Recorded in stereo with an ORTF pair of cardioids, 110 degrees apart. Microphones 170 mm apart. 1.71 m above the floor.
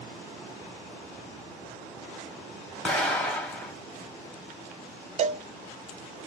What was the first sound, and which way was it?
An explosion, 10° left.